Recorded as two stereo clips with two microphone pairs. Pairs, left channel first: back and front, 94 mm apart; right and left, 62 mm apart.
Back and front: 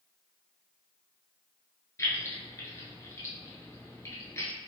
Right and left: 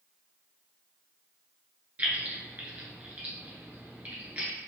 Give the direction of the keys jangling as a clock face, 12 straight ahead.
7 o'clock.